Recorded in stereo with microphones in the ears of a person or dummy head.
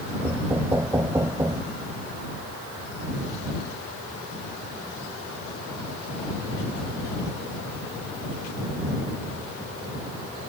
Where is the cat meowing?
No cat meowing in this recording.